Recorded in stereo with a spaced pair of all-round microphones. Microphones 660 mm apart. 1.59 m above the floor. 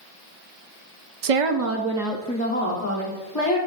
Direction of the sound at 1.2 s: 65° right (ahead or behind).